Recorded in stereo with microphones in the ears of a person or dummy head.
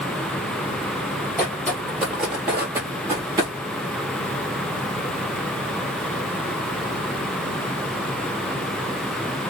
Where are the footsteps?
5° left (ahead or behind), 1.7 m; by 3.5 s 25° right (ahead or behind), 1.5 m.